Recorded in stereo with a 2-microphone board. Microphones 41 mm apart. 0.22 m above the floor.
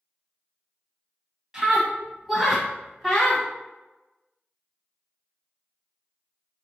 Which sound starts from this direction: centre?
A scream, at 1.5 s.